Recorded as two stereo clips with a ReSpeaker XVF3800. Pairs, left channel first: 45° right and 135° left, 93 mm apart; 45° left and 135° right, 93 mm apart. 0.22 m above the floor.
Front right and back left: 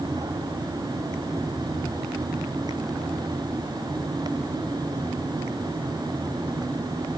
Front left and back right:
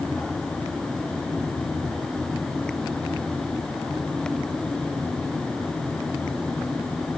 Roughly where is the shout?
No shout in this recording.